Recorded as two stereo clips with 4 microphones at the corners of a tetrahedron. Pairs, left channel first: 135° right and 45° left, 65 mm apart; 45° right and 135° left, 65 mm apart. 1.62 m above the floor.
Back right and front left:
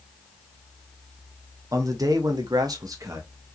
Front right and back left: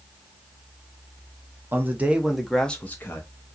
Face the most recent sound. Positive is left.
turn(degrees=0)